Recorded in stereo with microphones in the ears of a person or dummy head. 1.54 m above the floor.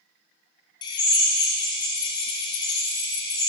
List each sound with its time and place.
0.8 s a drill: 20° left (ahead or behind), 1.3 m